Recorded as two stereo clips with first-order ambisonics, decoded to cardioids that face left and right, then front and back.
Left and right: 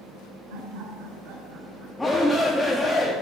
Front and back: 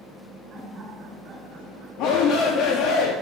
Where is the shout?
5° left, 1.0 m.